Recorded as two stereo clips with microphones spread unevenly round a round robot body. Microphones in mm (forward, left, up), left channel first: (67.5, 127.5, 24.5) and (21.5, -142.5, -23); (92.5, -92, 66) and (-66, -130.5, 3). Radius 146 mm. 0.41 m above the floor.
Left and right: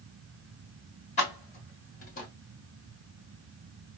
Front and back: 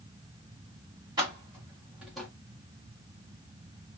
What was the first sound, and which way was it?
Keys jangling, 150° left.